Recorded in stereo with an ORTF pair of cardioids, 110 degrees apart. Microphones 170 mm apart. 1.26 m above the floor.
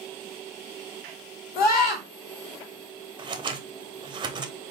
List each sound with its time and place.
1.6 s a scream: 65° left, 1.7 m
3.2 s scissors: 30° right, 0.6 m